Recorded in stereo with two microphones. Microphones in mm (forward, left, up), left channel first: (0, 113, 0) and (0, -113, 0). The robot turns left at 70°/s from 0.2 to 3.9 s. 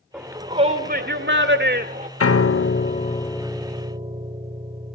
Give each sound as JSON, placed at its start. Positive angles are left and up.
{"t": 0.1, "sound": "a shout", "azimuth_deg": -5, "distance_m": 1.8}
{"t": 2.2, "sound": "a piano", "azimuth_deg": 90, "distance_m": 0.6}